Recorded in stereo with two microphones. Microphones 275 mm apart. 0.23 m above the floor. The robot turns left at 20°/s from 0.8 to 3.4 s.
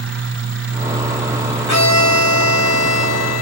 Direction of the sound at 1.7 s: 105° right.